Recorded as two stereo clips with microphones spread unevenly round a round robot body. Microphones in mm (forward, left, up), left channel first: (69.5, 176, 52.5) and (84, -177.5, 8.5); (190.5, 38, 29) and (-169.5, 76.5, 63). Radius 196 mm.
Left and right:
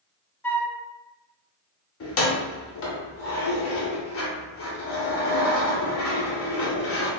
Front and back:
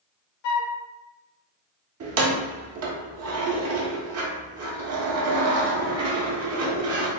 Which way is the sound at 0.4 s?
10° left.